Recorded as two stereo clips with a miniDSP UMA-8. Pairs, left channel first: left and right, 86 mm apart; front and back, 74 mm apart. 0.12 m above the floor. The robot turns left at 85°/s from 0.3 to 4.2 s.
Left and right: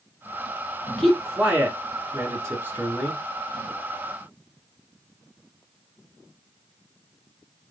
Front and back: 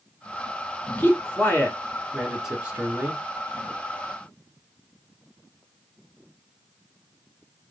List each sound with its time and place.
1.0 s a man speaking: 20° left, 1.4 m; by 3.2 s 170° right, 1.4 m